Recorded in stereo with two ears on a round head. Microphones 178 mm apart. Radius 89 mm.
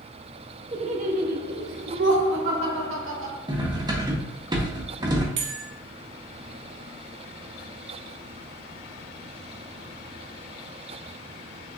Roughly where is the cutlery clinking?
Right.